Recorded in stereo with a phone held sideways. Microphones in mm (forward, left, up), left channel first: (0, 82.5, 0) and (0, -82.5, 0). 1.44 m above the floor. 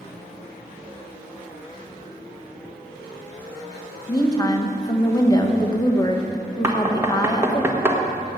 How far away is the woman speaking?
About 1.5 m.